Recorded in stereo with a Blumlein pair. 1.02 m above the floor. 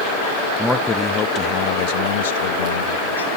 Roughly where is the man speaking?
Ahead.